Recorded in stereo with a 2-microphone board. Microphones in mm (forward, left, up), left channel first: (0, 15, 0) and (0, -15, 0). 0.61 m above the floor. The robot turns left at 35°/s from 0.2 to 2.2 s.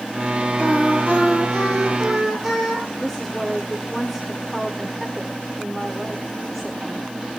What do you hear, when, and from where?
0.6 s singing: 55° left, 7.5 m; by 2.9 s straight ahead, 7.5 m
3.0 s a woman speaking: 5° left (ahead or behind), 1.5 m